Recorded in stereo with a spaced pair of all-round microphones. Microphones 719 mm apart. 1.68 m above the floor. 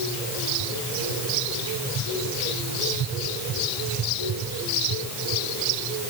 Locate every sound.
Only background noise.